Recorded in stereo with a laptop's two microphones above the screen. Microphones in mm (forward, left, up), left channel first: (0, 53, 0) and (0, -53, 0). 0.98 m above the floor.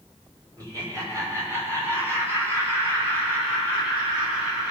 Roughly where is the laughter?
Right.